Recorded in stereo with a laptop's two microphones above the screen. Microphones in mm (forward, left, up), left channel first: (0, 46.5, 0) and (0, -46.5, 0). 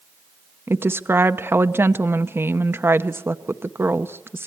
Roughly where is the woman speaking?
Right.